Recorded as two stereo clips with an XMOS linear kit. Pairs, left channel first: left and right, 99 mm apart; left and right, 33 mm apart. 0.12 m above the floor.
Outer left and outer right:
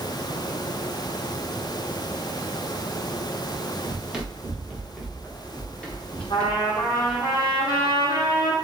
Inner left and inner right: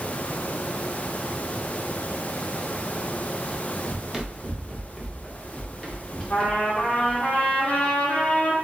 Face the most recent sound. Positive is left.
turn(degrees=45)  # may be behind; listen again after turning